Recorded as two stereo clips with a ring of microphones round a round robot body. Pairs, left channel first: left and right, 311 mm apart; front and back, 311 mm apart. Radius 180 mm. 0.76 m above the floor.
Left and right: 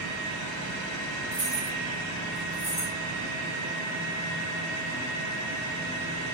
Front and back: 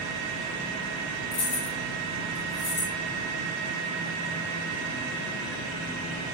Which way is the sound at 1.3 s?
15° right.